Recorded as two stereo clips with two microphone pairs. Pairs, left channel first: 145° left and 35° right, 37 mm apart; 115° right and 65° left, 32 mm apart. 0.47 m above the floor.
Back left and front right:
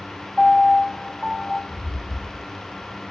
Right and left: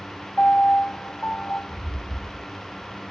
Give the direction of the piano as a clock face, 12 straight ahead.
4 o'clock.